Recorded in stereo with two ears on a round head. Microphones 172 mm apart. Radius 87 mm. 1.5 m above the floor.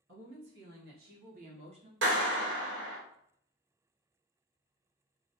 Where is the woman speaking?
60° right (ahead or behind), 1.7 m; by 1.9 s 25° right (ahead or behind), 0.7 m.